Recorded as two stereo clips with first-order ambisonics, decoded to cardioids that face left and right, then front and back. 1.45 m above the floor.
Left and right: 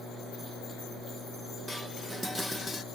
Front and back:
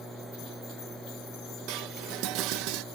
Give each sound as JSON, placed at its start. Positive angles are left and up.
{"t": 1.7, "sound": "dishes clattering", "azimuth_deg": 175}